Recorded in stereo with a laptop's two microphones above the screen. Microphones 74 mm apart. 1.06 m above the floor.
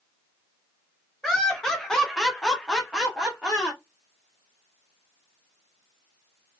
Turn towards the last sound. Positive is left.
turn(degrees=0)  # may be behind; listen again after turning